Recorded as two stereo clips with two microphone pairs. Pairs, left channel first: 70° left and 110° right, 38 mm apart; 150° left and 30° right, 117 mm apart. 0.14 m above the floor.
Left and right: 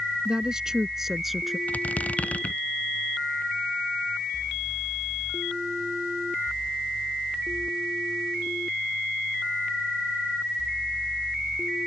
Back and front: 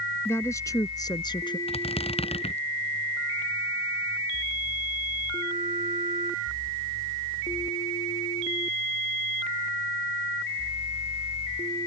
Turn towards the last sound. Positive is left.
turn(degrees=120)